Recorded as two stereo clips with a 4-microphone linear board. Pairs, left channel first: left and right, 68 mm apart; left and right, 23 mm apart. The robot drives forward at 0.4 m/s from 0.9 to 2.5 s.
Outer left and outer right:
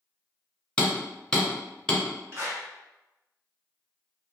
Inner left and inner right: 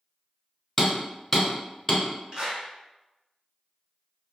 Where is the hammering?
15° left (ahead or behind), 0.8 m; by 2.0 s 10° left (ahead or behind), 1.1 m.